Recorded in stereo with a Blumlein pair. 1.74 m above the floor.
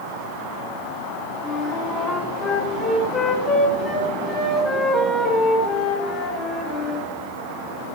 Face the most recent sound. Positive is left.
turn(degrees=20)